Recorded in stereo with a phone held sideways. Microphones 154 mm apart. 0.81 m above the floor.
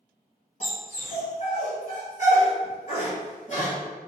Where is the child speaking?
No child speaking in this recording.